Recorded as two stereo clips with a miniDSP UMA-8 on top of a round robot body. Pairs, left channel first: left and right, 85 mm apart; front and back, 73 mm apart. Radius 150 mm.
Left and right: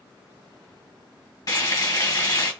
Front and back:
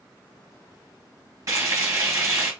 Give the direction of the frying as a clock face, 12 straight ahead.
8 o'clock.